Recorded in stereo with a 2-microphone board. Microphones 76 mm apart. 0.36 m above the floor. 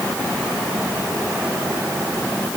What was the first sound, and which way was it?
Only background noise.